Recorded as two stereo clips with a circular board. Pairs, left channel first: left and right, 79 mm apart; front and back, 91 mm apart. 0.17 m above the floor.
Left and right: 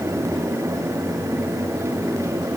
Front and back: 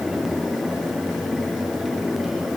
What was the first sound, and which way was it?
Only background noise.